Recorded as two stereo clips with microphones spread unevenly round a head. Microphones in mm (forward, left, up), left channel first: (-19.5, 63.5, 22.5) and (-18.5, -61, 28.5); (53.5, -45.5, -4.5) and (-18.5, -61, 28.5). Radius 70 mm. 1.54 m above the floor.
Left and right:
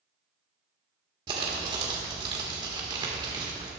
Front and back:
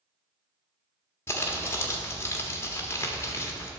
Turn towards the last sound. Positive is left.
turn(degrees=-60)